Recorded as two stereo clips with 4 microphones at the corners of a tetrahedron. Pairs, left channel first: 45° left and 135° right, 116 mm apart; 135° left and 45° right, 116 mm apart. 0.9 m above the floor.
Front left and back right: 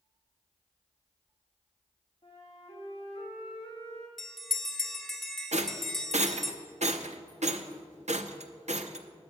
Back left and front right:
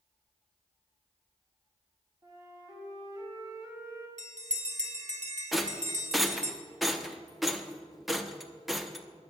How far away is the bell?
About 1.1 m.